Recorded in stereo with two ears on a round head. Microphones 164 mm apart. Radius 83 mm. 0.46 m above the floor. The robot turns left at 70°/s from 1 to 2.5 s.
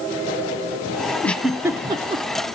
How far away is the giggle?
About 0.9 m.